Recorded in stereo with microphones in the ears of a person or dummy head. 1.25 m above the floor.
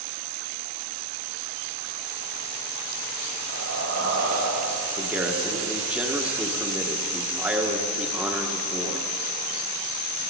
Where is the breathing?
65° right (ahead or behind), 6 m.